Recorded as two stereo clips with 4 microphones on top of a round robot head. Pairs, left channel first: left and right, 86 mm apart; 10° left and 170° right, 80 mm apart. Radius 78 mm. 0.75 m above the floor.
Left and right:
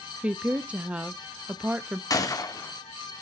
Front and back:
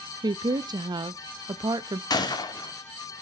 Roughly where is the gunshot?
Ahead left.